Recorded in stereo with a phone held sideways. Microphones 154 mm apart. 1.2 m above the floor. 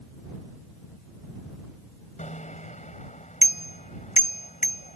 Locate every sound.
2.2 s a bicycle bell: 55° left (ahead or behind)